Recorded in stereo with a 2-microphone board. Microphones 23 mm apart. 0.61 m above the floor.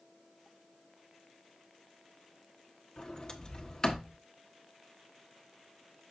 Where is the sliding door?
30° left (ahead or behind), 1.1 m.